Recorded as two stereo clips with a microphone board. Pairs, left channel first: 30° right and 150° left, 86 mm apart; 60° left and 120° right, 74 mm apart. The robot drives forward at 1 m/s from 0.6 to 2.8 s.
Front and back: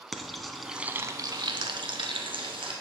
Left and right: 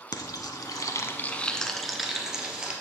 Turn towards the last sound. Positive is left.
turn(degrees=165)